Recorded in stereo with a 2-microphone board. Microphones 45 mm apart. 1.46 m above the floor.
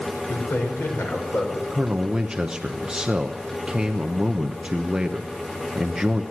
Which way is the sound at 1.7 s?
15° right (ahead or behind).